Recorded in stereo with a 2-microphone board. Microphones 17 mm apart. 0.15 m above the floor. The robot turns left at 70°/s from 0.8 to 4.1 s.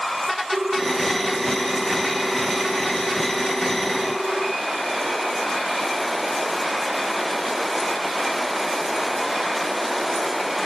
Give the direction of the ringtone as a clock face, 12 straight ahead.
3 o'clock.